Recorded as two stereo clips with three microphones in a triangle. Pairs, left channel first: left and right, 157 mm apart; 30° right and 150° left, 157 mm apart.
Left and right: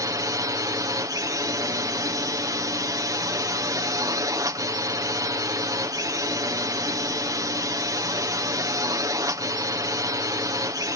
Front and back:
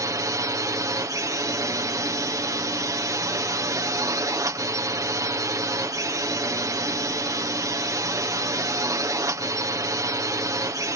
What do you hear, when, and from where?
0.0 s a drone: 150° right